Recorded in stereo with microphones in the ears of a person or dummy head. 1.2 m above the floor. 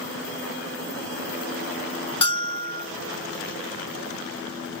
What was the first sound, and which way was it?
A bell, 25° left (ahead or behind).